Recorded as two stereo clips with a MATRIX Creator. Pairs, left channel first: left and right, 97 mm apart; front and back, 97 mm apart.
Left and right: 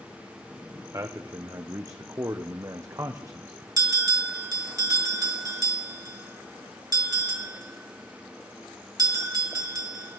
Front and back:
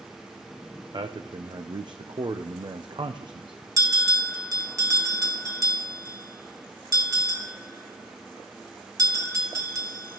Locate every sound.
0.9 s a man speaking: 145° right, 0.7 m
3.8 s a bell: 135° right, 1.8 m